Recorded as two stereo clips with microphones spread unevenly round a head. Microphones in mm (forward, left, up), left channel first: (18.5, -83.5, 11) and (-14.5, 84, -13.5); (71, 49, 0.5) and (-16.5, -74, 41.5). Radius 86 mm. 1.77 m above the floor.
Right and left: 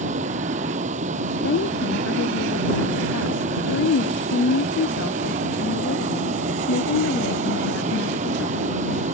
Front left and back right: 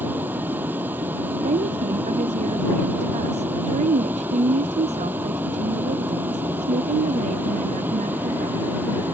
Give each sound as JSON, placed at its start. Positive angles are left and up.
{"t": 0.0, "sound": "a vehicle", "azimuth_deg": 155}
{"t": 1.4, "sound": "a woman speaking", "azimuth_deg": -85}